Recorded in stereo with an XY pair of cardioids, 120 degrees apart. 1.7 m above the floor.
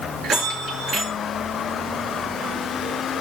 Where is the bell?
60° right, 5.5 m.